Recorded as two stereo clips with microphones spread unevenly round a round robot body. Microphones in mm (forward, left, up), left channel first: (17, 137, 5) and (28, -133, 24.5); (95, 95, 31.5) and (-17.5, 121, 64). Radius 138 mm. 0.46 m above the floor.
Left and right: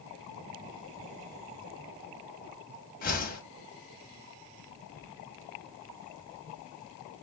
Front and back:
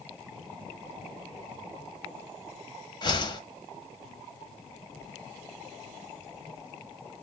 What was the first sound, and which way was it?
A whoosh, 35° left.